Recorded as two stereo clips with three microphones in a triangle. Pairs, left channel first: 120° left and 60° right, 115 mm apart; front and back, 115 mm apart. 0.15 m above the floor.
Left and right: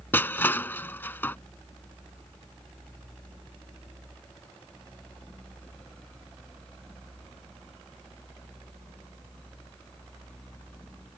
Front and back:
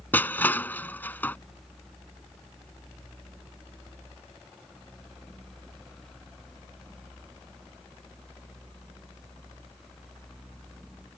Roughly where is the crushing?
Ahead left.